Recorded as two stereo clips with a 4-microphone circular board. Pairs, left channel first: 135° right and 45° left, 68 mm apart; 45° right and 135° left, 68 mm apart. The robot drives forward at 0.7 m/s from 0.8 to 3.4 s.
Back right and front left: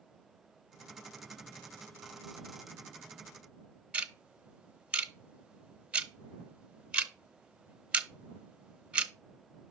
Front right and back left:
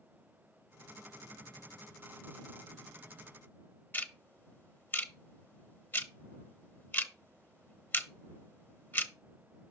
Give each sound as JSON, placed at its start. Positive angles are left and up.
{"t": 3.9, "sound": "ticking", "azimuth_deg": -15, "distance_m": 0.7}